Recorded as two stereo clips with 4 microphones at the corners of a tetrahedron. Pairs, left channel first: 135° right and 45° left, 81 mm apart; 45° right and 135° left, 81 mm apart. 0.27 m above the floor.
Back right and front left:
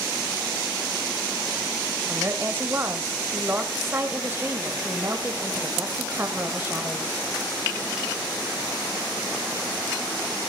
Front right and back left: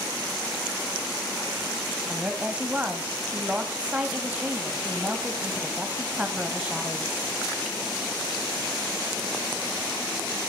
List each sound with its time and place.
2.1 s a woman speaking: 75° left, 1.3 m